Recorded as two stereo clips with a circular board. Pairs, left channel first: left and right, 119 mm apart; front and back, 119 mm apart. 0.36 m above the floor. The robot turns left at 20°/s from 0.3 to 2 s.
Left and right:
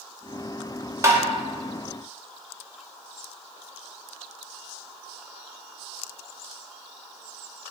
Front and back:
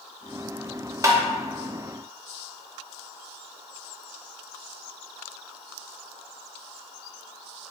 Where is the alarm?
I don't hear an alarm.